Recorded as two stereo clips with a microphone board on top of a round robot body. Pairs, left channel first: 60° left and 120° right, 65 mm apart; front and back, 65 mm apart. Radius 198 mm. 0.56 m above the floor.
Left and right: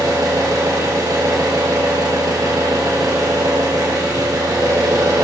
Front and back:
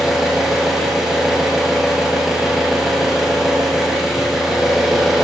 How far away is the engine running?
About 4.5 m.